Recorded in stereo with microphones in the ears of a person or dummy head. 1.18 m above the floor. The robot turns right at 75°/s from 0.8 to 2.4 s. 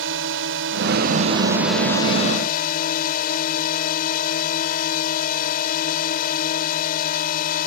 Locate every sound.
0.0 s a drone: 70° right; by 7.7 s 50° left